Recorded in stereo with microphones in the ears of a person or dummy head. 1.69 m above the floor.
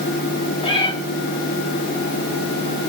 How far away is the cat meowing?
About 4 m.